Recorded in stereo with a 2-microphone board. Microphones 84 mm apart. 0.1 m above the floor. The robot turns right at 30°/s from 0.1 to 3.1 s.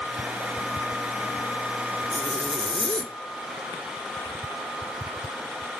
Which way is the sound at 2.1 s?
65° right (ahead or behind).